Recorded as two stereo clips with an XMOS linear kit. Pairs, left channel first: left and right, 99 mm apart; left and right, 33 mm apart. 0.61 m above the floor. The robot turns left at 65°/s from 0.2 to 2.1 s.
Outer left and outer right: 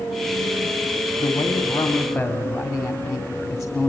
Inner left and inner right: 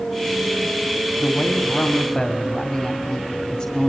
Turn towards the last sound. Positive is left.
turn(degrees=5)